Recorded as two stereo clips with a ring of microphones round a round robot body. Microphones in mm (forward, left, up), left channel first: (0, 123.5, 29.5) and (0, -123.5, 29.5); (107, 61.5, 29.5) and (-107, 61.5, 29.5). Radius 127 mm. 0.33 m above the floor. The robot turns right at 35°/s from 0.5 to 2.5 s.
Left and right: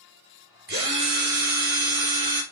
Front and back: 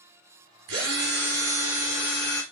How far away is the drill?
About 3 m.